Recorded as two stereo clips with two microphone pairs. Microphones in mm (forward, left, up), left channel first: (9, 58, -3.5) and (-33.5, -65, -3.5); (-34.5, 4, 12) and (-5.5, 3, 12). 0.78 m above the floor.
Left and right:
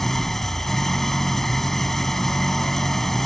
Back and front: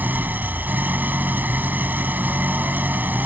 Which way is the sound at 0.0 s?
15° right.